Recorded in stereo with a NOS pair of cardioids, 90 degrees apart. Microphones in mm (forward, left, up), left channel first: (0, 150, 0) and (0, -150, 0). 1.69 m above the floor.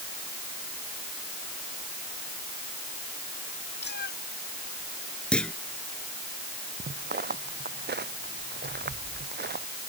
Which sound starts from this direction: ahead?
A clunk, at 5.3 s.